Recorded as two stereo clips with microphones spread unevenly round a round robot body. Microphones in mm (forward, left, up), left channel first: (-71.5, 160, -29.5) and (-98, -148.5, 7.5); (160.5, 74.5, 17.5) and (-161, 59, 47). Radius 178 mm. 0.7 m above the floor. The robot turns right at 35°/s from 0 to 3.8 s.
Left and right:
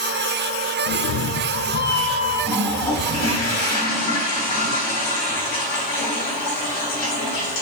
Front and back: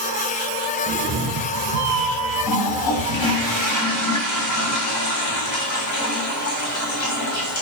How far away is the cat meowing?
About 0.8 m.